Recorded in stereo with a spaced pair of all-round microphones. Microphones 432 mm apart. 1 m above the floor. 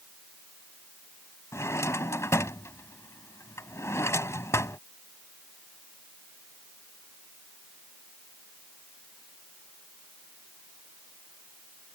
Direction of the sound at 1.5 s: 5° left (ahead or behind).